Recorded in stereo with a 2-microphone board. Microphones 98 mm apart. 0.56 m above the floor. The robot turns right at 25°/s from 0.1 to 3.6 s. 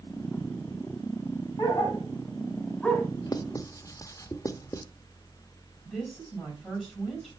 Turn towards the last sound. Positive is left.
turn(degrees=5)  # may be behind; listen again after turning